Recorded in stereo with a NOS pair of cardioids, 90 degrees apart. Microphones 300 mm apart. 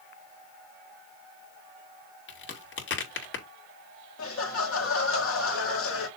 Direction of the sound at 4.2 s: 50° left.